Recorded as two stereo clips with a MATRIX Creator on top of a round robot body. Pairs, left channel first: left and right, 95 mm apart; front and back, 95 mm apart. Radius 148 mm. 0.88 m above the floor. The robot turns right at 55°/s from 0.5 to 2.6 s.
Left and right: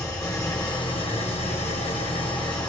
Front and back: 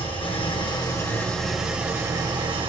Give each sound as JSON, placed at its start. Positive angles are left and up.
{"t": 0.0, "sound": "an engine running", "azimuth_deg": 35, "distance_m": 1.4}